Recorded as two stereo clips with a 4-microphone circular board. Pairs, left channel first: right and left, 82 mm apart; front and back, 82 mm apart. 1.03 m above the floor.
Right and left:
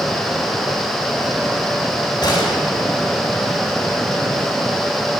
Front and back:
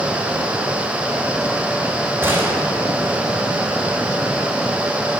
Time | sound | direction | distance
2.2 | a gunshot | 115° right | 3 m